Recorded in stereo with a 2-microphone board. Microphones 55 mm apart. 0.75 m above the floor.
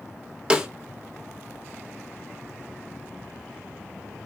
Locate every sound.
0.5 s a snare drum: 20° right (ahead or behind), 0.7 m